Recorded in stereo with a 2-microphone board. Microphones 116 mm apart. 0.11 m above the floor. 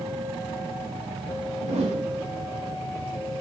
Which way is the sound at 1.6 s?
75° right (ahead or behind).